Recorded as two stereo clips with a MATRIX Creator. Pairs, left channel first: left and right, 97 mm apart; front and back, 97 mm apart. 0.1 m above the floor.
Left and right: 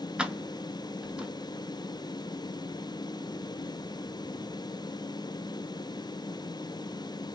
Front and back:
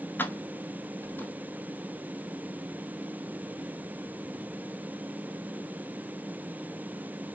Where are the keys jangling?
25° right, 0.8 m.